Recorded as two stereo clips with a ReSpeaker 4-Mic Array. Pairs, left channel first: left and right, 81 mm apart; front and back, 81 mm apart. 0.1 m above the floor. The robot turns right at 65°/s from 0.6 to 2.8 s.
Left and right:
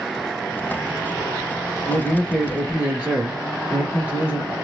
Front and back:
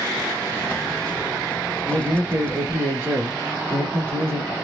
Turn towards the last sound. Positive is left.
turn(degrees=-150)